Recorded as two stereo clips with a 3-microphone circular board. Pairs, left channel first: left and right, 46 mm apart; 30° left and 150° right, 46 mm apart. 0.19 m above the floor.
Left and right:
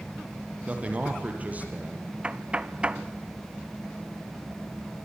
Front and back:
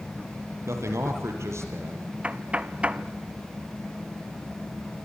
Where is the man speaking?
150° right, 6 m; by 2.1 s 145° right, 5.5 m.